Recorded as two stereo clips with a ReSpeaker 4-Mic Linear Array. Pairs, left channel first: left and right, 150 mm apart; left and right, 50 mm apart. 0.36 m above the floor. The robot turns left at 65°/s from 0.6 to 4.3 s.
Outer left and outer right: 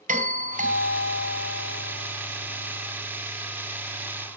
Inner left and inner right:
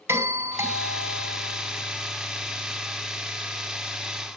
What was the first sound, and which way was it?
A doorbell, 70° right.